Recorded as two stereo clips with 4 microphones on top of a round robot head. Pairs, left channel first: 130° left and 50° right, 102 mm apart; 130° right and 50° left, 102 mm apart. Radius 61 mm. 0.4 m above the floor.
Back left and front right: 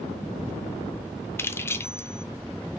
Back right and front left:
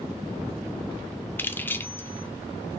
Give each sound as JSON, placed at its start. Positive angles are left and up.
{"t": 1.4, "sound": "keys jangling", "azimuth_deg": 175, "distance_m": 0.5}